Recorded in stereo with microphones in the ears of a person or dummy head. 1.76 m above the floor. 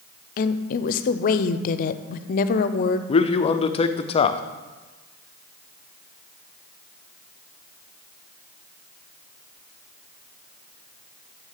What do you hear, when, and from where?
0.4 s a woman speaking: 50° left (ahead or behind), 0.6 m
3.1 s a man speaking: 30° left (ahead or behind), 0.5 m